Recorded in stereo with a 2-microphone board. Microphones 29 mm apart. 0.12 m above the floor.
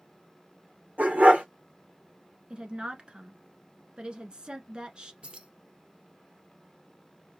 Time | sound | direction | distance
1.0 | a dog barking | 70° right (ahead or behind) | 2.5 m
2.5 | a woman speaking | 30° right (ahead or behind) | 1.3 m
5.2 | keys jangling | 45° right (ahead or behind) | 1.5 m